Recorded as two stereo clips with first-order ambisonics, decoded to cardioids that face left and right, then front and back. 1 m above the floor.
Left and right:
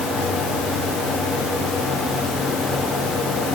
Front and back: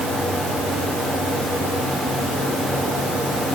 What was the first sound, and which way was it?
Only background noise.